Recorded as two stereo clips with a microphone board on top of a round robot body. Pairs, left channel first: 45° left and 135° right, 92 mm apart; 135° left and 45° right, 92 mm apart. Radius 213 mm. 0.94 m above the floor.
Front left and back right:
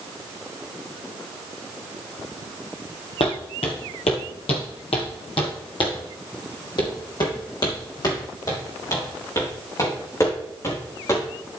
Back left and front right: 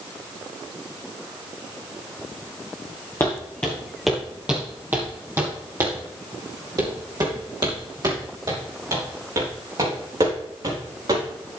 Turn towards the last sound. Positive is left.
turn(degrees=-10)